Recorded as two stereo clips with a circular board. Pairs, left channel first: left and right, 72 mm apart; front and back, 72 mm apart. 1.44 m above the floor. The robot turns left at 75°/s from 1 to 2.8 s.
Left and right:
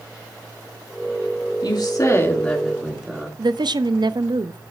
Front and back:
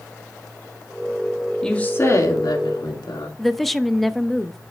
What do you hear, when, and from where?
1.6 s a woman speaking: 80° left, 2 m; by 3.3 s 5° right, 2 m
3.4 s a woman speaking: 90° right, 0.6 m